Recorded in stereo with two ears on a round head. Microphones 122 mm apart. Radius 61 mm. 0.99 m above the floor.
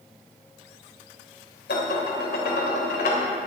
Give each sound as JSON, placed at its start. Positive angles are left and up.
{"t": 1.7, "sound": "dishes clattering", "side_deg": 70, "distance_m": 3.0}